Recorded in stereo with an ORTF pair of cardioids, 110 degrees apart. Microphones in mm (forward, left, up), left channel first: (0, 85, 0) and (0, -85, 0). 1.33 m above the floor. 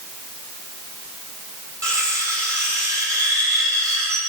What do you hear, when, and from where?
1.8 s cutlery clinking: 20° right, 3 m